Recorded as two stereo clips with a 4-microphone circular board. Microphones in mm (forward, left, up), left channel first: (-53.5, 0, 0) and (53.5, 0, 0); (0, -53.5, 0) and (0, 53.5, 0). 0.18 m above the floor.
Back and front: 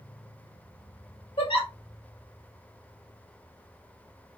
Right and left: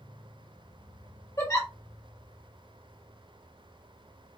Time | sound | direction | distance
1.4 | a giggle | 150° right | 1.8 m